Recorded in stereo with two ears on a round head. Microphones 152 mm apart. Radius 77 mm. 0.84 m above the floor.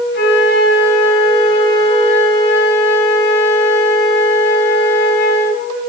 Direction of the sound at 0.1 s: 80° left.